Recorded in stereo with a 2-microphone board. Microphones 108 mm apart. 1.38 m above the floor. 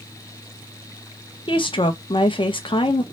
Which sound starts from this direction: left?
A woman speaking, at 1.5 s.